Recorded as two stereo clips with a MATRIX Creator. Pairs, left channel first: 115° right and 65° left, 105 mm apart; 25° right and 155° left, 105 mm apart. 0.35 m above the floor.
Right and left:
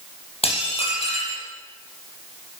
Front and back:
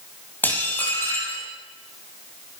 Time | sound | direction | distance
0.4 | dishes clattering | 95° right | 6.5 m